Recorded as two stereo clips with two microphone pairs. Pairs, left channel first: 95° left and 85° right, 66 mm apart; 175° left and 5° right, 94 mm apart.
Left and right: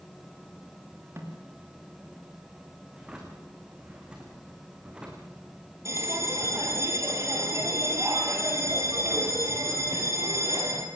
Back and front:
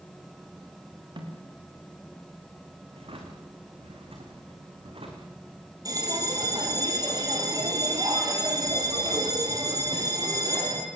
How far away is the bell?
About 3 m.